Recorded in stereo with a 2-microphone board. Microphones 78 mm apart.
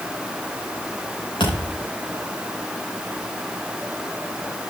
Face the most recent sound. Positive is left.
turn(degrees=90)